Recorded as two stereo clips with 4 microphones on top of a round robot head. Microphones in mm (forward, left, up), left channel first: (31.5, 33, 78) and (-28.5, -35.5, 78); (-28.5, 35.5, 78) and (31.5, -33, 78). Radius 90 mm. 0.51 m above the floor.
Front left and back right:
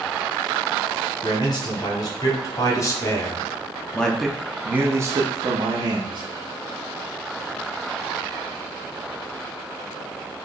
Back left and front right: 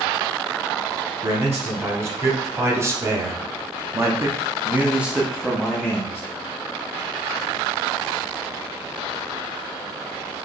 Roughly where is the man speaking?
Ahead.